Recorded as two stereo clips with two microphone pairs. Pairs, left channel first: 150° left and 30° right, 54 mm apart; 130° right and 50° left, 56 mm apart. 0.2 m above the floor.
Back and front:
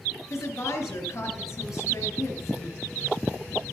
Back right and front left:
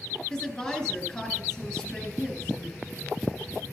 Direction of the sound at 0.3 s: 160° left.